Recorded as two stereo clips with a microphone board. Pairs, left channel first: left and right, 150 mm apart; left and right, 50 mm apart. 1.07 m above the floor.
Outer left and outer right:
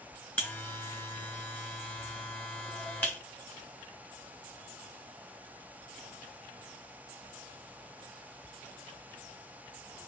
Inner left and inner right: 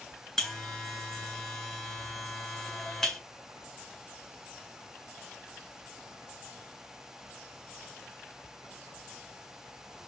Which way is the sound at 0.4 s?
10° left (ahead or behind).